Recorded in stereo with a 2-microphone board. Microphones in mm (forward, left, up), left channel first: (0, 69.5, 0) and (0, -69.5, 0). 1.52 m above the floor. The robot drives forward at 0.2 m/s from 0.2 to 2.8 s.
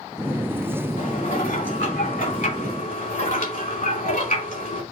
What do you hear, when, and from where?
1.0 s dishes clattering: 65° left (ahead or behind), 3 m; by 4.8 s 70° left (ahead or behind), 2.5 m